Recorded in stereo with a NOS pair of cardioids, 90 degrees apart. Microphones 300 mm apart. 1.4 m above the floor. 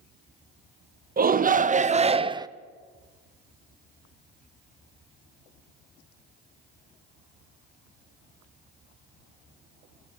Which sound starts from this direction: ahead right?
A shout, at 1.2 s.